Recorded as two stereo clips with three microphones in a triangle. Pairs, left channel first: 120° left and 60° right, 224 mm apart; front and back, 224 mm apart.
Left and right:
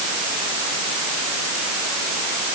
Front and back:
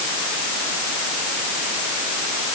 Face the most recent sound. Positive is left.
No sound to turn to.